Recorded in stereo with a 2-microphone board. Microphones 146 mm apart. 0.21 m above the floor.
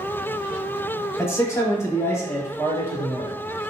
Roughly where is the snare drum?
No snare drum in this recording.